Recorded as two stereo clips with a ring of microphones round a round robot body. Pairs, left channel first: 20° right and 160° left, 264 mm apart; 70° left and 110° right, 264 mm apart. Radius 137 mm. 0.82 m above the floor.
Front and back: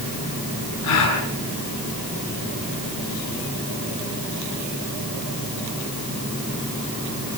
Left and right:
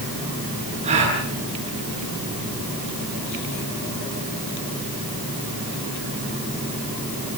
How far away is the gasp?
About 7 m.